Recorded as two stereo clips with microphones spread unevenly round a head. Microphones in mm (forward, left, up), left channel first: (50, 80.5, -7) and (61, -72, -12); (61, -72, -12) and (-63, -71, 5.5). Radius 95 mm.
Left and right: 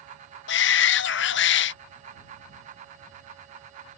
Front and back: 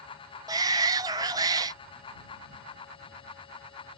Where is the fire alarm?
No fire alarm in this recording.